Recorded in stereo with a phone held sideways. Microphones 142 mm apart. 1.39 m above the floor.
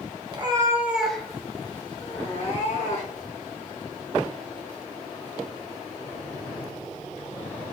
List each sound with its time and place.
0.3 s a cat meowing: 35° right (ahead or behind), 0.9 m; by 3.3 s 55° left (ahead or behind), 1.8 m